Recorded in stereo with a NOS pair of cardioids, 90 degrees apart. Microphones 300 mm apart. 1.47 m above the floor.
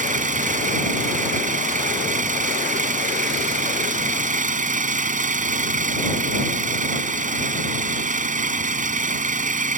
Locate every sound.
0.0 s an engine running: 25° right